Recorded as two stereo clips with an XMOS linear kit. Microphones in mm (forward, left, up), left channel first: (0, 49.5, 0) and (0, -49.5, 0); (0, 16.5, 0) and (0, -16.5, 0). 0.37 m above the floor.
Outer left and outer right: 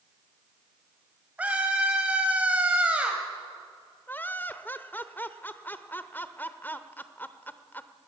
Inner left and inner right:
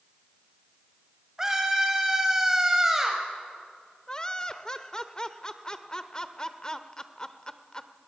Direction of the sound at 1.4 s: 15° right (ahead or behind).